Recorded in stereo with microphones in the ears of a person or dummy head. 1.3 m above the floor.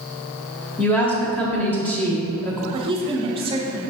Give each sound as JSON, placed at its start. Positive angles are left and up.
{"t": 0.8, "sound": "a woman speaking", "side_deg": 10, "distance_m": 0.7}
{"t": 2.7, "sound": "a woman speaking", "side_deg": -25, "distance_m": 0.6}